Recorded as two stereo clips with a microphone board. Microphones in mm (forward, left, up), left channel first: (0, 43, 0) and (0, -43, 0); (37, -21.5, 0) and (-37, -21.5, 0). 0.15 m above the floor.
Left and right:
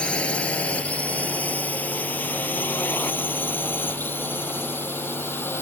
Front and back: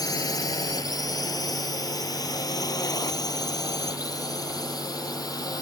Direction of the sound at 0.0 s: 15° left.